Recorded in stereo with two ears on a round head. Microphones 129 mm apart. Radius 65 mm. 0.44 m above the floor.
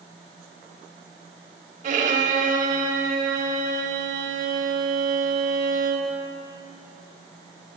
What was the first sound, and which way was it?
A violin, 55° right (ahead or behind).